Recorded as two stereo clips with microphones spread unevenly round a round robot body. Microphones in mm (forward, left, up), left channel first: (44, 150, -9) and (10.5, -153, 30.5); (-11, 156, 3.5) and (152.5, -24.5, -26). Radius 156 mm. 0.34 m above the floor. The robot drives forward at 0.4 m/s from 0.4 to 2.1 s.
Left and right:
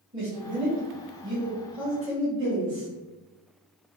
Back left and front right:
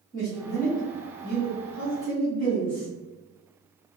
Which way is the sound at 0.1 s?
170° right.